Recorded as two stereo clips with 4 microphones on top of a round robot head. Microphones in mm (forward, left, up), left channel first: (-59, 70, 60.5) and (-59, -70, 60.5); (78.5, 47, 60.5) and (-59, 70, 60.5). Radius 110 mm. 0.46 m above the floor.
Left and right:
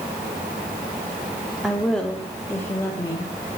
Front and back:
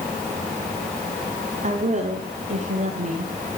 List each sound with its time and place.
1.6 s a woman speaking: straight behind, 1.3 m; by 3.3 s 150° left, 1.8 m